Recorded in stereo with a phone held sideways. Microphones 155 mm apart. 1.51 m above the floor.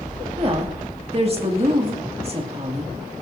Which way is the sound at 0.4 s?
40° right (ahead or behind).